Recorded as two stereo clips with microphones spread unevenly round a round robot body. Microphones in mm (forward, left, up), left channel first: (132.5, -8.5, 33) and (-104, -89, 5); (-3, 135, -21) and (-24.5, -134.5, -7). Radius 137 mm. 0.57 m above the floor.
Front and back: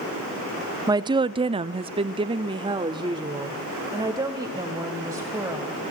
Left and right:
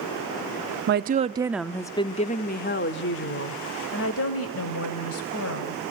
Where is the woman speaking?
110° right, 0.7 m; by 5.8 s 120° left, 3 m.